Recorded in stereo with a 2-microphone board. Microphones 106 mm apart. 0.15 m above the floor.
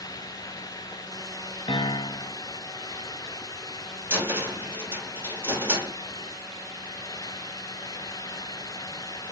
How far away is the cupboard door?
About 1.4 m.